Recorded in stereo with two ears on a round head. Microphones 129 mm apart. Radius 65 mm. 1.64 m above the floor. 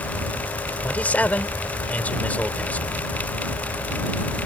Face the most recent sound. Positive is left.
turn(degrees=10)  # may be behind; listen again after turning